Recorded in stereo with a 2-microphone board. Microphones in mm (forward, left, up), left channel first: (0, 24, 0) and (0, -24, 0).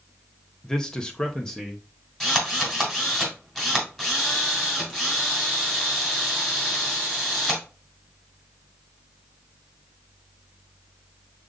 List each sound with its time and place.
0.6 s a man speaking: 15° left (ahead or behind), 0.7 m
2.2 s a drill: 10° left (ahead or behind), 2.5 m